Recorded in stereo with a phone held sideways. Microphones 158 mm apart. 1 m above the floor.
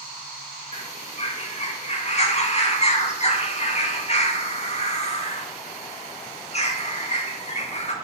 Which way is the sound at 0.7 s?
40° left (ahead or behind).